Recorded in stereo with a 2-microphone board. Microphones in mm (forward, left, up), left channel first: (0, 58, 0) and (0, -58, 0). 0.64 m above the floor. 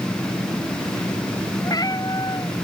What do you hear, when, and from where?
1.6 s a cat meowing: 35° left (ahead or behind)